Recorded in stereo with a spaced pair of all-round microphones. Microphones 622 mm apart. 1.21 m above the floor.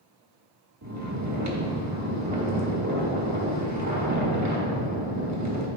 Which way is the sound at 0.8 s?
25° right (ahead or behind).